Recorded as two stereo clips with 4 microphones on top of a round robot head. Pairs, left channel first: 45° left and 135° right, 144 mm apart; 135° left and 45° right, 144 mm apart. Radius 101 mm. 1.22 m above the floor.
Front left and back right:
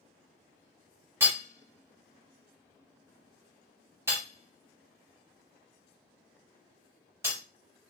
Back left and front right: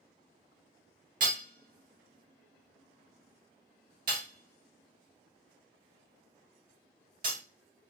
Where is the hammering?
65° right, 0.5 m.